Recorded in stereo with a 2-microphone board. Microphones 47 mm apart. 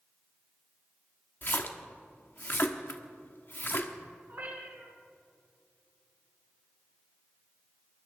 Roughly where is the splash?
Left.